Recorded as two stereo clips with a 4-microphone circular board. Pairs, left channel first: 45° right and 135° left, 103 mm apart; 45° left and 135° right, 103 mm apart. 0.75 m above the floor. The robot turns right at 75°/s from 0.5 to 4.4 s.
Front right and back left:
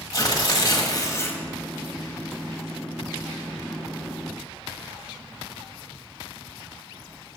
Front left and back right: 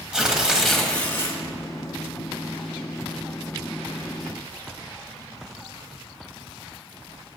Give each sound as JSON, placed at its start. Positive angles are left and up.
{"t": 0.1, "sound": "tearing paper", "azimuth_deg": -60, "distance_m": 1.0}